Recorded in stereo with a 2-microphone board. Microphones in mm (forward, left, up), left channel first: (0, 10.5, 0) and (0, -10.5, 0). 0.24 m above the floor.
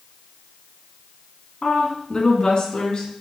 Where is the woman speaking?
35° left (ahead or behind), 2 m; by 3.1 s 45° left (ahead or behind), 3.5 m.